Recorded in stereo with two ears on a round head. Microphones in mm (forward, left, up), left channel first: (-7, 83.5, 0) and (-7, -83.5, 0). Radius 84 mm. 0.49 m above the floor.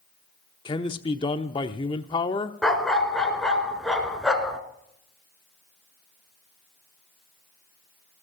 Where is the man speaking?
25° left (ahead or behind), 0.8 m.